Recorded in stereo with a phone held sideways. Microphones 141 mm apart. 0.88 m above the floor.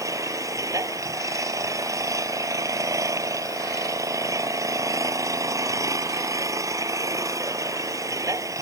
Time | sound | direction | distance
0.0 | an engine running | 25° right (ahead or behind) | ?